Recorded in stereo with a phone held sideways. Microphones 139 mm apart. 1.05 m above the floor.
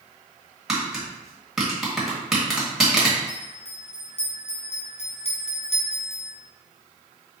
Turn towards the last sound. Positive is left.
turn(degrees=45)  # may be behind; listen again after turning